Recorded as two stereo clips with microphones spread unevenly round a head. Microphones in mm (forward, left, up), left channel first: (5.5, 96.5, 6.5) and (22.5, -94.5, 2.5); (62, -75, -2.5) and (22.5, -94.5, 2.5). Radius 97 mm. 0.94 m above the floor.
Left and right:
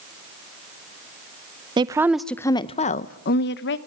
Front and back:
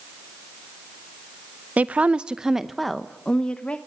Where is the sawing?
I don't hear sawing.